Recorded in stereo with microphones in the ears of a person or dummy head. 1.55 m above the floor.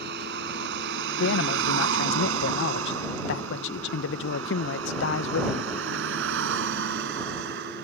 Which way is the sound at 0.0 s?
60° right (ahead or behind).